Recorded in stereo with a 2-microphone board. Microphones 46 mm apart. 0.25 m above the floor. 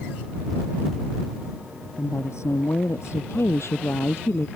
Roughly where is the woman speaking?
Left.